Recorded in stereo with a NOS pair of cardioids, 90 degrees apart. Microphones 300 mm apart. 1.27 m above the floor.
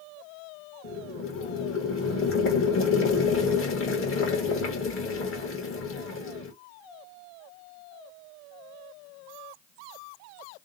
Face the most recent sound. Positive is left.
turn(degrees=45)